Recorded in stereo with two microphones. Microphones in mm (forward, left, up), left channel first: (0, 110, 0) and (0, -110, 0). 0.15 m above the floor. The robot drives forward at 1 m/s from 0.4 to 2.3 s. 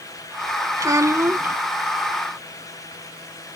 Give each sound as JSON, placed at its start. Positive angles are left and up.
{"t": 0.8, "sound": "a child speaking", "side_deg": -15}